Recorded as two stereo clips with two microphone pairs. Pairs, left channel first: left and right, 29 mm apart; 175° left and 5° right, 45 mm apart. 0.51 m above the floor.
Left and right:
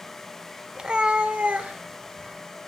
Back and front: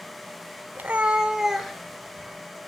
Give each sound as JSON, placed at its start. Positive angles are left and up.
{"t": 0.8, "sound": "a cat meowing", "azimuth_deg": -45, "distance_m": 0.9}